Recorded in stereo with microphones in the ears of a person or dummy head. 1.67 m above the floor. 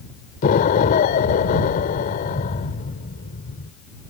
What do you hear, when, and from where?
0.4 s an explosion: 45° left (ahead or behind)